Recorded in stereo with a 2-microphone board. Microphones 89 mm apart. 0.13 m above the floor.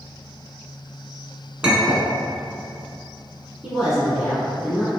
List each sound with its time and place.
1.6 s a clink: 10° right (ahead or behind), 0.8 m
3.6 s a woman speaking: 5° right (ahead or behind), 1.3 m